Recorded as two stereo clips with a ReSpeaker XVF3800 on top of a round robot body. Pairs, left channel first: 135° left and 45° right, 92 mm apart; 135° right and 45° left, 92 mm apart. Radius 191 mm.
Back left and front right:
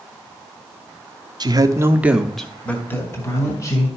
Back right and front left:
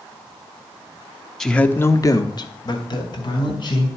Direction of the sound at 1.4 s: 50° right.